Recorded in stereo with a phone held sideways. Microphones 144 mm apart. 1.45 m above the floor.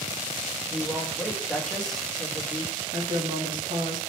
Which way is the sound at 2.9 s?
65° right (ahead or behind).